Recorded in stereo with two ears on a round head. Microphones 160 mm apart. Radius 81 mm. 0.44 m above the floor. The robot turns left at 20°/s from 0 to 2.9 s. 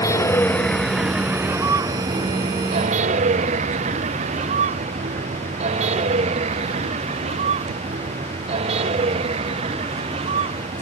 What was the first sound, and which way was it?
A vehicle, 15° left (ahead or behind).